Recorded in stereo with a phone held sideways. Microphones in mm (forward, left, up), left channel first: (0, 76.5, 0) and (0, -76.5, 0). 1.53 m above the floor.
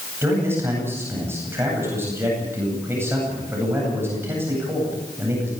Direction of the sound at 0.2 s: 15° right (ahead or behind).